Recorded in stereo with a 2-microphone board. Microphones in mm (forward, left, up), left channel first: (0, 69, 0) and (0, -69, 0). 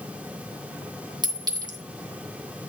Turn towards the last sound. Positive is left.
turn(degrees=-30)  # may be behind; listen again after turning